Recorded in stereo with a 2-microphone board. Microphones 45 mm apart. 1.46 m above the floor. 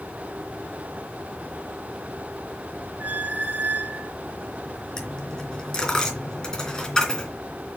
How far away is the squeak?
About 0.6 m.